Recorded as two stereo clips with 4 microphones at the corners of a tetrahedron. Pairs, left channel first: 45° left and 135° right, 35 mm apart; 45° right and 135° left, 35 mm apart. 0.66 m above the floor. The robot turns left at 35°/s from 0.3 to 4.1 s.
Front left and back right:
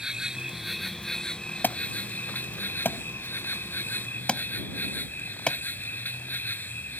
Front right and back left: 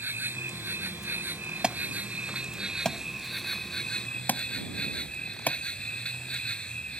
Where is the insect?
150° left; by 7.0 s 15° left.